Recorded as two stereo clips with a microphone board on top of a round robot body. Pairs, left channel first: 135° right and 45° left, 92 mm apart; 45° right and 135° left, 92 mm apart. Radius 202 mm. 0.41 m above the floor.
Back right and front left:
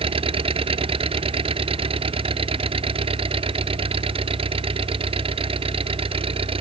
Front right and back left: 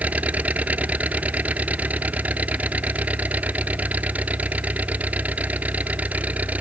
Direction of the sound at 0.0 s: 60° left.